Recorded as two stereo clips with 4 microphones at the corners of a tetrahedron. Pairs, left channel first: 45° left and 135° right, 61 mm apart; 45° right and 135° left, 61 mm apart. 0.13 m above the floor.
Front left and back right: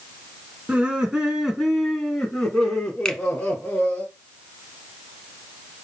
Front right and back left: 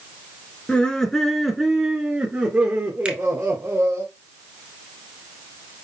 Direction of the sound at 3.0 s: 105° left.